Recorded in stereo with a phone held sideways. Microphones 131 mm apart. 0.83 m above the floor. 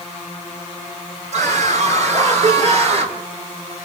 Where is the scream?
65° right (ahead or behind), 8.5 m; by 3.2 s 60° right (ahead or behind), 6.5 m.